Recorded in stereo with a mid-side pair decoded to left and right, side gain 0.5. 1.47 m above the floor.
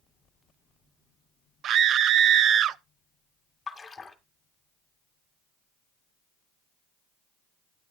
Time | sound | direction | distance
1.6 | a scream | 60° right | 0.7 m
3.7 | a splash | 25° left | 2 m